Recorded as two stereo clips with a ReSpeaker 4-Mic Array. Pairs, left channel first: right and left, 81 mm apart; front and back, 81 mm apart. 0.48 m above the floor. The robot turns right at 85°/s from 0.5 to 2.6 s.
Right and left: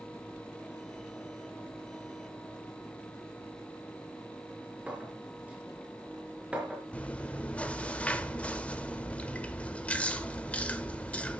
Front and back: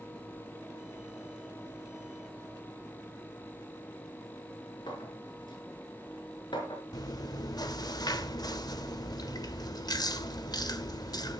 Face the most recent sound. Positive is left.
turn(degrees=-20)